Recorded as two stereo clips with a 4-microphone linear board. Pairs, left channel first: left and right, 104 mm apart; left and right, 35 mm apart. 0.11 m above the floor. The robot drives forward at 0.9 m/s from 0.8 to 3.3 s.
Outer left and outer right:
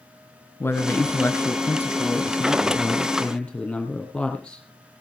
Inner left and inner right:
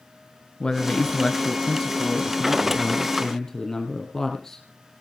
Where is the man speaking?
20° left (ahead or behind), 1.1 m; by 4.6 s 10° left (ahead or behind), 2.5 m.